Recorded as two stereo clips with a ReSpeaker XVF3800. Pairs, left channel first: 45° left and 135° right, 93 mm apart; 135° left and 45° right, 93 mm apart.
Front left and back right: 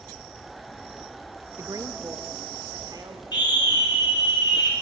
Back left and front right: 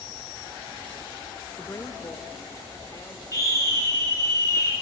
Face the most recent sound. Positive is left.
turn(degrees=80)